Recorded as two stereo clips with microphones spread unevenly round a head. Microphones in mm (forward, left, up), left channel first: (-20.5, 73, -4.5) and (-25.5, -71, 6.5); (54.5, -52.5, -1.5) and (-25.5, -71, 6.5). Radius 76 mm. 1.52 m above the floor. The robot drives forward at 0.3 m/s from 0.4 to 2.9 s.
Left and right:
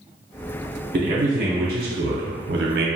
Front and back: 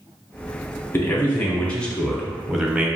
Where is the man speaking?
50° right, 0.9 m; by 2.9 s 90° right, 0.7 m.